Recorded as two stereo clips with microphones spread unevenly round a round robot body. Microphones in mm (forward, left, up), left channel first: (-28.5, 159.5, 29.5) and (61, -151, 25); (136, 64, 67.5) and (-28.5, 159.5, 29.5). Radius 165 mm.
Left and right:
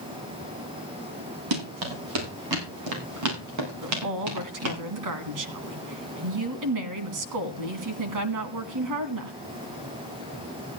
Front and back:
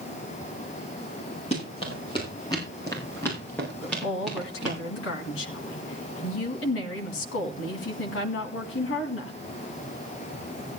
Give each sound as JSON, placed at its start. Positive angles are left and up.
{"t": 1.5, "sound": "running footsteps", "azimuth_deg": -100, "distance_m": 8.0}
{"t": 3.8, "sound": "a woman speaking", "azimuth_deg": -50, "distance_m": 2.5}